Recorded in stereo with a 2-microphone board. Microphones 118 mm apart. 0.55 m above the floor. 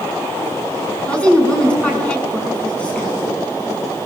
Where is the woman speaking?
10° left (ahead or behind), 6.5 m.